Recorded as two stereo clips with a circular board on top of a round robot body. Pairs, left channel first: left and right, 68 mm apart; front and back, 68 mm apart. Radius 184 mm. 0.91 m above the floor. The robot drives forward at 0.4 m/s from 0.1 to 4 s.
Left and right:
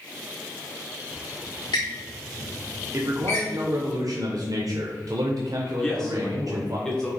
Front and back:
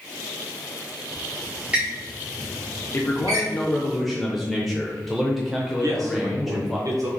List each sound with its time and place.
1.1 s a squeak: 85° left, 0.7 m; by 3.5 s 145° left, 1.1 m
2.9 s a man speaking: 50° right, 0.8 m; by 6.8 s 90° right, 0.7 m
5.8 s a man speaking: 170° left, 0.9 m